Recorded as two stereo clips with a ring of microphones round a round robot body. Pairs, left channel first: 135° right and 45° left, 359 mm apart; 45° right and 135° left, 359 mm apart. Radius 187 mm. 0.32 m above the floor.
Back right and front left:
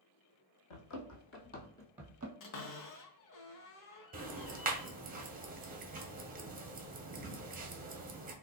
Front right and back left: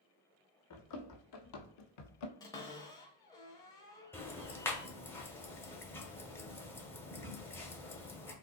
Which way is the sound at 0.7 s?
95° right.